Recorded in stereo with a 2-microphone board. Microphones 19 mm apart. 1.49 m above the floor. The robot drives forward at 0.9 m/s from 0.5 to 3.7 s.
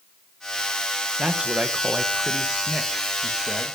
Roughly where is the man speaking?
Right.